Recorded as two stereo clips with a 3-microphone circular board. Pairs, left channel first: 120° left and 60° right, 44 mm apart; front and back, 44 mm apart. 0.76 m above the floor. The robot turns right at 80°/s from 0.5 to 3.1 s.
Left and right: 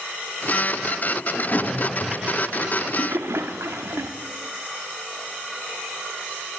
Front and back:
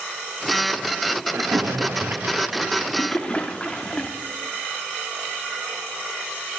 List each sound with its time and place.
1.3 s a splash: 155° left, 0.8 m; by 4.1 s 65° right, 0.8 m